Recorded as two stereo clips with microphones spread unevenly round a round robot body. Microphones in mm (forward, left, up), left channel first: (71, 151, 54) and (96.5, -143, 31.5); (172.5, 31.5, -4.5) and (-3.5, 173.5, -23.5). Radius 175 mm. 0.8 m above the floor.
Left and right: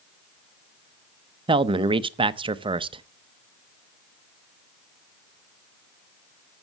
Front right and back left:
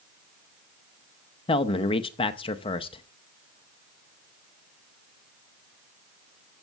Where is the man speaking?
75° right, 0.5 m.